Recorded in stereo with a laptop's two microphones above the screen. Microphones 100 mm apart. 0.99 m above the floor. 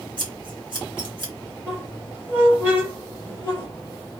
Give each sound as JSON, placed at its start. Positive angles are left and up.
{"t": 0.2, "sound": "scissors", "side_deg": -55, "distance_m": 1.3}
{"t": 1.7, "sound": "a squeak", "side_deg": -25, "distance_m": 1.9}